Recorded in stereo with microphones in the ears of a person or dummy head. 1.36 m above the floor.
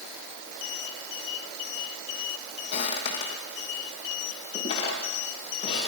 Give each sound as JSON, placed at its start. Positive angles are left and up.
{"t": 2.7, "sound": "footsteps", "side_deg": 35, "distance_m": 3.5}